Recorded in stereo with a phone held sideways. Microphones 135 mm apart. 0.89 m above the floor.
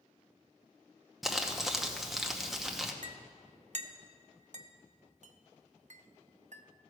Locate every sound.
1.2 s crumpling: centre (ahead or behind), 0.9 m
3.0 s a clink: 60° right (ahead or behind), 0.6 m